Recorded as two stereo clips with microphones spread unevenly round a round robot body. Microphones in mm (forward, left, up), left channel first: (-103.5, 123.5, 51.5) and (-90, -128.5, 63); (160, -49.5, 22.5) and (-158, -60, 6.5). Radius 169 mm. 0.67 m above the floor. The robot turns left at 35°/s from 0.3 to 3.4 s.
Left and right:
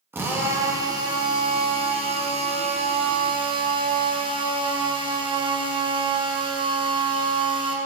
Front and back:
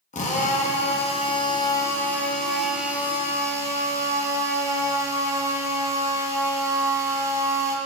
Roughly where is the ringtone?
I don't hear a ringtone.